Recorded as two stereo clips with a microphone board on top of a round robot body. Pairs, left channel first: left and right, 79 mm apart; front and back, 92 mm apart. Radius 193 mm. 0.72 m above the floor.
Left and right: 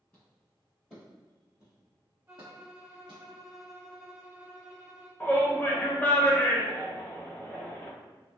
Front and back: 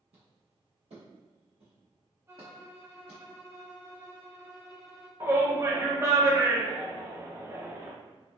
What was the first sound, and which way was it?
Footsteps, 165° left.